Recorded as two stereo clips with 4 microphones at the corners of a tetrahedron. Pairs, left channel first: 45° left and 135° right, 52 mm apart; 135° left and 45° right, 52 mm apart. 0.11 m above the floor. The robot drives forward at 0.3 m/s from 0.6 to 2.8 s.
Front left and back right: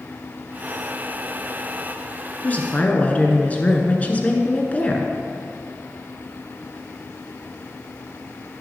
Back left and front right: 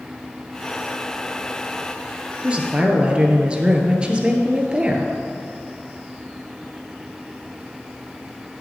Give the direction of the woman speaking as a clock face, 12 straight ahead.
12 o'clock.